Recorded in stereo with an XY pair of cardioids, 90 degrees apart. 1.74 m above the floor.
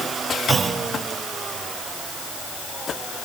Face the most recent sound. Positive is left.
turn(degrees=-50)